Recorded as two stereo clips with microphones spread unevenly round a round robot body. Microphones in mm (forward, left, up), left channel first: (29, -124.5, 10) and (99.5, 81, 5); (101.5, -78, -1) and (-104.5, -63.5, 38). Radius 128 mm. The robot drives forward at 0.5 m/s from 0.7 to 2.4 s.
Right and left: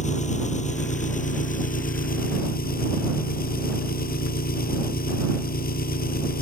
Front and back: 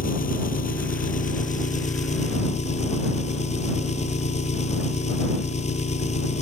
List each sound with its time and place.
0.0 s an engine running: 55° right; by 6.4 s 60° right